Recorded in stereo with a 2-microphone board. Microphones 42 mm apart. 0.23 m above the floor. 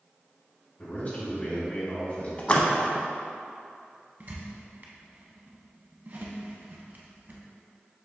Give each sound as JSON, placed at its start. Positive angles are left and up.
{"t": 0.8, "sound": "a man speaking", "side_deg": 40, "distance_m": 1.9}
{"t": 2.4, "sound": "a splash", "side_deg": 30, "distance_m": 0.5}
{"t": 4.2, "sound": "a squeak", "side_deg": -50, "distance_m": 0.6}